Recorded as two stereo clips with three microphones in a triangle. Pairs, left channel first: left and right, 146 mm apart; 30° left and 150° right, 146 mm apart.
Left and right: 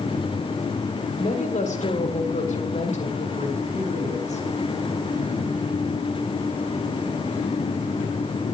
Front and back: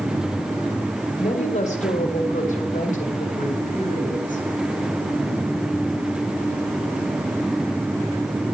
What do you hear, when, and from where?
1.2 s a woman speaking: 65° left, 1.9 m; by 4.4 s 55° left, 4 m